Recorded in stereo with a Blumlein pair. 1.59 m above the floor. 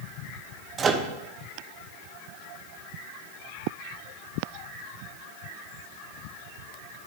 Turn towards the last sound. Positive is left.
turn(degrees=-20)